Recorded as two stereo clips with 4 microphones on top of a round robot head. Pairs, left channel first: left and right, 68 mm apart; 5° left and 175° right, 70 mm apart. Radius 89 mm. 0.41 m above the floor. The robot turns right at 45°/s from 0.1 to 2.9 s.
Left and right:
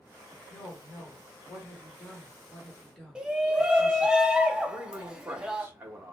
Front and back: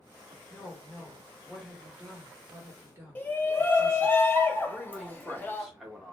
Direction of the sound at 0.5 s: 50° left.